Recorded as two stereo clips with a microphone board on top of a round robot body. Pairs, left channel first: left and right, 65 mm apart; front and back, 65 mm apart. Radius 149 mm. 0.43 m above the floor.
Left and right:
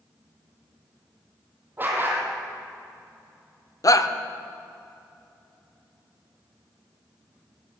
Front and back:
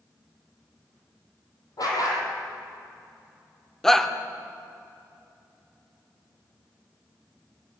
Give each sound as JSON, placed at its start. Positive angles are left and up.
{"t": 1.8, "sound": "a dog barking", "azimuth_deg": -30, "distance_m": 4.5}
{"t": 3.8, "sound": "a shout", "azimuth_deg": 85, "distance_m": 1.5}